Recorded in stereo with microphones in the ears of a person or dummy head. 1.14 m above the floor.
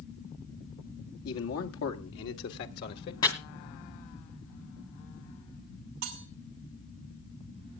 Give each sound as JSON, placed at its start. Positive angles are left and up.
{"t": 1.2, "sound": "a man speaking", "side_deg": 80, "distance_m": 2.0}
{"t": 3.2, "sound": "chopping", "side_deg": 25, "distance_m": 2.5}
{"t": 6.0, "sound": "cutlery clinking", "side_deg": -65, "distance_m": 2.5}